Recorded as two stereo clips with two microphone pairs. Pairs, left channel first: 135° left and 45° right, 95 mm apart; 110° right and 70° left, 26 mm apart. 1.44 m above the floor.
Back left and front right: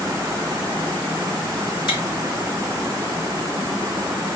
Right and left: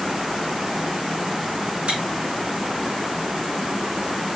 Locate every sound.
1.9 s chewing: 105° left, 3 m